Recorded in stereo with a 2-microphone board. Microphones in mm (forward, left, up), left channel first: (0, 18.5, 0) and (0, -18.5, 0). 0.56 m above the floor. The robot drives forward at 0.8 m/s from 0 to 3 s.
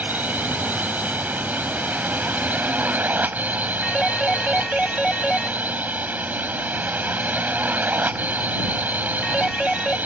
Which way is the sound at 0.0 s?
55° right (ahead or behind).